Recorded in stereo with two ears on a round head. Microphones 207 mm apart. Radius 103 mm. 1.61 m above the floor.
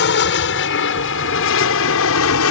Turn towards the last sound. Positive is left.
turn(degrees=70)  # may be behind; listen again after turning